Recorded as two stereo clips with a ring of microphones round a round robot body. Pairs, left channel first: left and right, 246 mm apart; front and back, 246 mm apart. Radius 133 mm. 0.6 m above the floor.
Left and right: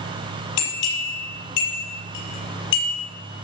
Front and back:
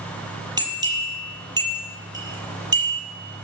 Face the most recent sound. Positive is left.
turn(degrees=105)